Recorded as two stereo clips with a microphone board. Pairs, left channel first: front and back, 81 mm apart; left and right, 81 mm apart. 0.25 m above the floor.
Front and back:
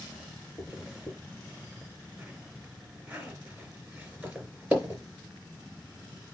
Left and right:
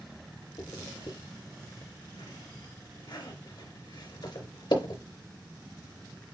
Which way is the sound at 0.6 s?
105° left.